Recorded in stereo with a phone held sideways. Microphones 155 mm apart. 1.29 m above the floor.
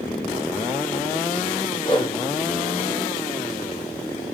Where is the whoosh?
30° left (ahead or behind), 0.8 m.